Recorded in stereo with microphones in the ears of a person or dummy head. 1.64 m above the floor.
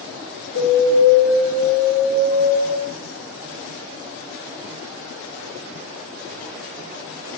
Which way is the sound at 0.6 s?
75° left (ahead or behind).